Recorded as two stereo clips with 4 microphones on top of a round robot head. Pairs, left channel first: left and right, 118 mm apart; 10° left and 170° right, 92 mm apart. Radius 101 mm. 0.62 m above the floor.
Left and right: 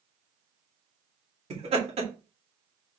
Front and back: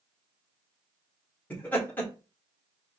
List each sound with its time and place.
1.5 s laughter: 60° right, 1.9 m